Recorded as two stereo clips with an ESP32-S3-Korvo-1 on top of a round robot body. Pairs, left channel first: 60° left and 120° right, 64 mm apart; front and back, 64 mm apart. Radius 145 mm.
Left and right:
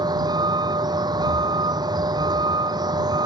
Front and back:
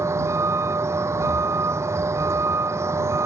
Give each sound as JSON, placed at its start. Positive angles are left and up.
{"t": 0.0, "sound": "a vehicle", "azimuth_deg": -135}